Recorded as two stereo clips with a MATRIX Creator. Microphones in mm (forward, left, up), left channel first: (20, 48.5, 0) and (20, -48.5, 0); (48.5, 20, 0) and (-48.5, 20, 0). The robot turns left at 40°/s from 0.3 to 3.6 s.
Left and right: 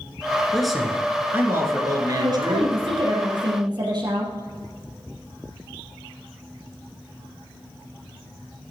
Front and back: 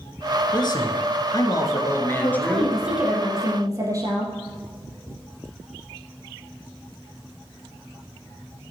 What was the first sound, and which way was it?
A man speaking, 5° left.